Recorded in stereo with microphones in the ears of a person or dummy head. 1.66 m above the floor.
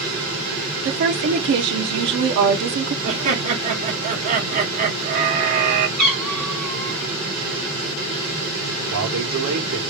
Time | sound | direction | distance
0.8 | a woman speaking | 60° right (ahead or behind) | 0.8 m
3.0 | laughter | 45° right (ahead or behind) | 1.8 m
6.0 | a cat meowing | centre (ahead or behind) | 1.0 m
8.9 | a man speaking | 65° right (ahead or behind) | 1.5 m